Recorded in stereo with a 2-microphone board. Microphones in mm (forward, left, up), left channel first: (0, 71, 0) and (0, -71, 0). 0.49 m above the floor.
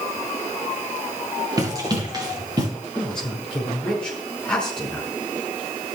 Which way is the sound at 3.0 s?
5° left (ahead or behind).